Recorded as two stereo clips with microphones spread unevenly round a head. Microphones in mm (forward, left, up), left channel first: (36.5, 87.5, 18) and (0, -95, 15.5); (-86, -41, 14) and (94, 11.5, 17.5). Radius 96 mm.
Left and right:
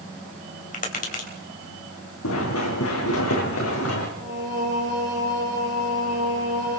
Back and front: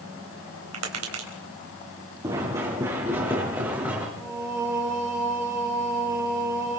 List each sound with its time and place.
0.7 s tapping: 30° left, 3.5 m
2.2 s running footsteps: 90° left, 4.5 m; by 4.1 s 100° left, 5.5 m
4.2 s singing: 55° right, 3.5 m